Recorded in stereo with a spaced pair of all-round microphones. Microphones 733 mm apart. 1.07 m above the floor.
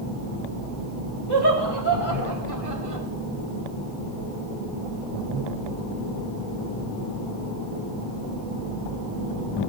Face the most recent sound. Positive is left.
turn(degrees=-45)  # may be behind; listen again after turning